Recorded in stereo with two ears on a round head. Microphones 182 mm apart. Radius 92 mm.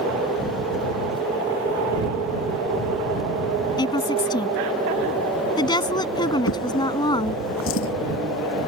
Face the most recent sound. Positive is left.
turn(degrees=70)  # may be behind; listen again after turning